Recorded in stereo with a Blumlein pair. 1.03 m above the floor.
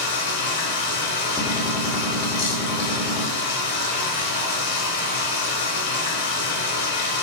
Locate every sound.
0.0 s running water: 55° left, 0.9 m
1.4 s a gunshot: 5° right, 0.8 m